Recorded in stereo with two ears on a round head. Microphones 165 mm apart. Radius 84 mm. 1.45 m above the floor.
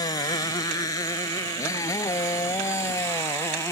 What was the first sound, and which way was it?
A motorcycle, 20° left (ahead or behind).